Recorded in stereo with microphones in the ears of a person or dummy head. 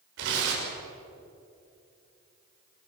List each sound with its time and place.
0.2 s tearing paper: 75° right (ahead or behind), 6.5 m